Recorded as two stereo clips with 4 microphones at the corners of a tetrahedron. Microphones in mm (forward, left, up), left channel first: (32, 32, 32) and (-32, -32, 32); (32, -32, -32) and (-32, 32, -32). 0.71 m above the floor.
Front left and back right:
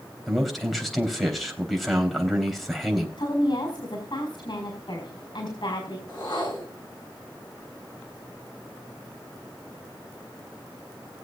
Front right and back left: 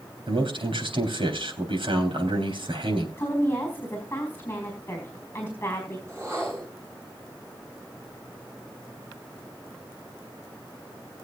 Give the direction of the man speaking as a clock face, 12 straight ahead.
8 o'clock.